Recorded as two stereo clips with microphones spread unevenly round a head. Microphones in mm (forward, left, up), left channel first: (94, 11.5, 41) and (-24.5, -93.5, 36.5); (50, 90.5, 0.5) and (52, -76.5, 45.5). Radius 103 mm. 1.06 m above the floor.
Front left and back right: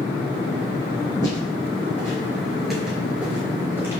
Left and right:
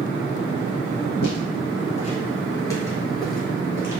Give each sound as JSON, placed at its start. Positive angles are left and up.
{"t": 1.2, "sound": "footsteps", "azimuth_deg": 105, "distance_m": 1.2}